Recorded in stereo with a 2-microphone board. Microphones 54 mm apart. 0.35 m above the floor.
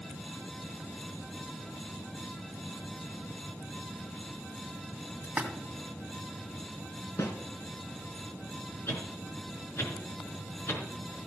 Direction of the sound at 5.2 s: 25° right (ahead or behind).